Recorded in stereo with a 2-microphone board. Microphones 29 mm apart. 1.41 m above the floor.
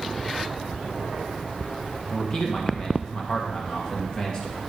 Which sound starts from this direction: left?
A man speaking, at 2.1 s.